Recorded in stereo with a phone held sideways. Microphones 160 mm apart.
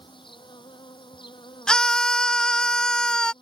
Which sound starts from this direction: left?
An insect, at 0.0 s.